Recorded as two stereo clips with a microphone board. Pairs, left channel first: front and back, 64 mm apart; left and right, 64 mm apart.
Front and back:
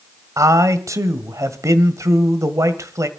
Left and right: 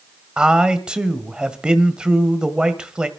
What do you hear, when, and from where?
0.4 s a man speaking: 165° right, 1.8 m